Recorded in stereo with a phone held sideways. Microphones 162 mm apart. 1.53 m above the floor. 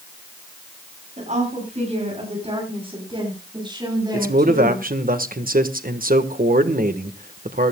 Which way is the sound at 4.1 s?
60° right (ahead or behind).